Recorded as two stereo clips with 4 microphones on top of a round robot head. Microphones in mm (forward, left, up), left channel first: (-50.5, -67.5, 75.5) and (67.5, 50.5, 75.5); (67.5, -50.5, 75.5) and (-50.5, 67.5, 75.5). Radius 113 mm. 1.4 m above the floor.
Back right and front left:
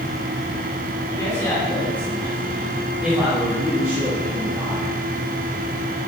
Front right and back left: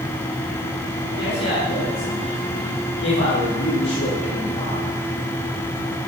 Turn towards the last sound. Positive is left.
turn(degrees=-15)